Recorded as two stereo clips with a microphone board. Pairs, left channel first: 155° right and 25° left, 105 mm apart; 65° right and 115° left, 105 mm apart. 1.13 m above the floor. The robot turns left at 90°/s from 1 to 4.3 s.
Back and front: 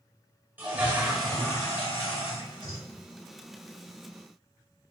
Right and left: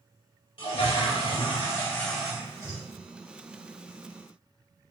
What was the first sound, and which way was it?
A toilet flushing, 50° right.